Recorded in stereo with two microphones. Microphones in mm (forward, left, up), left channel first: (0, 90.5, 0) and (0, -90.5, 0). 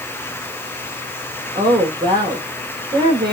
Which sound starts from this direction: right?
A woman speaking, at 1.6 s.